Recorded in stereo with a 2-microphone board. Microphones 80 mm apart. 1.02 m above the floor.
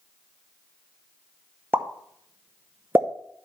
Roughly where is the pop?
Right.